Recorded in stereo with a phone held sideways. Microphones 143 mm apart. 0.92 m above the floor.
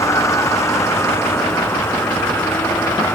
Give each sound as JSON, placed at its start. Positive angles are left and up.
{"t": 0.0, "sound": "a vehicle", "side_deg": 20}